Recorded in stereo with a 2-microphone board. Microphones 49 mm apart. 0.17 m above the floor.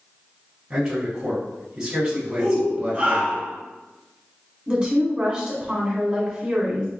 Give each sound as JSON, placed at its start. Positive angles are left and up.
{"t": 0.7, "sound": "a man speaking", "side_deg": -15, "distance_m": 1.0}
{"t": 2.4, "sound": "a shout", "side_deg": -30, "distance_m": 1.6}
{"t": 4.7, "sound": "a woman speaking", "side_deg": -25, "distance_m": 1.1}